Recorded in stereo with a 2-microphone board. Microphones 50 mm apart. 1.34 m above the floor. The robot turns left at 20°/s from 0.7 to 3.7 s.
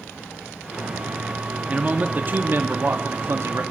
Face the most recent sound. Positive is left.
turn(degrees=-75)